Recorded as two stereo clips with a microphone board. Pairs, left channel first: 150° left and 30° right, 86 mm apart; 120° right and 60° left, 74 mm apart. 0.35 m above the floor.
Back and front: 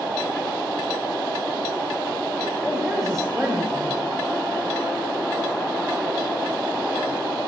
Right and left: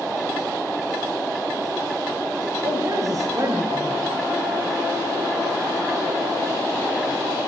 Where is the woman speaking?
65° left, 2 m.